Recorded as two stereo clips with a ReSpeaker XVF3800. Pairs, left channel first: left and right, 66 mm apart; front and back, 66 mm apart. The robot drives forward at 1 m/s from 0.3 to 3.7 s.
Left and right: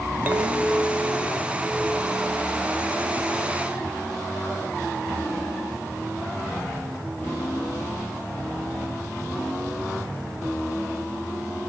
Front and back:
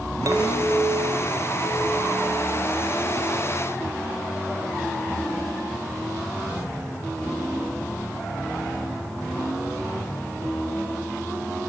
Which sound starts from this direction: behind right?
A clink, at 0.3 s.